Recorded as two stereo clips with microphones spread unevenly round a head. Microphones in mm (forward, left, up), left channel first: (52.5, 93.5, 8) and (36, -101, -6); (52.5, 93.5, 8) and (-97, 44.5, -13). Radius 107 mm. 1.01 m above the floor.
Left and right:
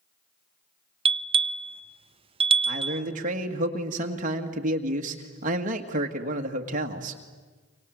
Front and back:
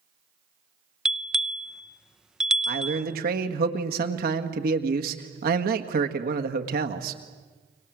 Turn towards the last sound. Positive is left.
turn(degrees=-145)